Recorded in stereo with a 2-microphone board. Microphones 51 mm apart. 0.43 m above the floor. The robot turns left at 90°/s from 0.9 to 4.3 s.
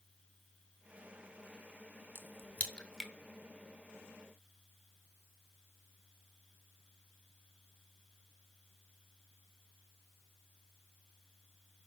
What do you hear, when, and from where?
2.1 s a crack: 45° left (ahead or behind), 0.6 m; by 3.1 s centre (ahead or behind), 0.6 m